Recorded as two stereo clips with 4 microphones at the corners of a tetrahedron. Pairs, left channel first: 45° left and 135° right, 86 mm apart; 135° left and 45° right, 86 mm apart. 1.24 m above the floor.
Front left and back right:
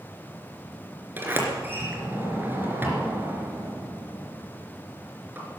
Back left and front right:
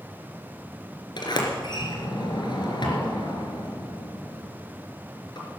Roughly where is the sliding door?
Behind.